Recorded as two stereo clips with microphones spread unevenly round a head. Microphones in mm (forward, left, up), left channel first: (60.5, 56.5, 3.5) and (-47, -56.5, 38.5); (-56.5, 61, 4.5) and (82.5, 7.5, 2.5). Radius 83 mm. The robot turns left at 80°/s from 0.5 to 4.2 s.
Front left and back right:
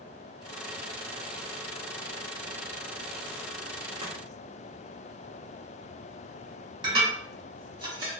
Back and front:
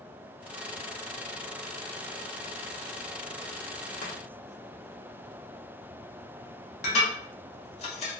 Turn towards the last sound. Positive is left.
turn(degrees=-170)